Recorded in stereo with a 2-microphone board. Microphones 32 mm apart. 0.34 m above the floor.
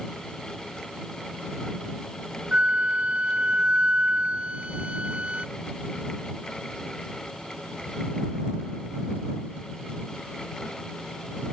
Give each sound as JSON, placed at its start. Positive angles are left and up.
{"t": 2.5, "sound": "a flute", "side_deg": -45}